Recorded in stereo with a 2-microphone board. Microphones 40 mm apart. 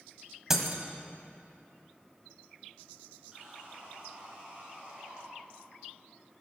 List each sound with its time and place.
0.5 s breaking glass: 10° right (ahead or behind), 1.5 m
3.3 s sawing: 20° right (ahead or behind), 4.5 m